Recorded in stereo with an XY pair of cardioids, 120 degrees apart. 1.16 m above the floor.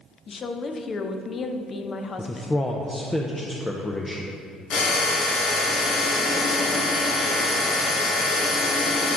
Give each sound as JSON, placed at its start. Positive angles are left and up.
{"t": 0.3, "sound": "a woman speaking", "azimuth_deg": 35, "distance_m": 0.7}
{"t": 2.2, "sound": "a man speaking", "azimuth_deg": 15, "distance_m": 0.5}
{"t": 4.7, "sound": "a drill", "azimuth_deg": 65, "distance_m": 1.9}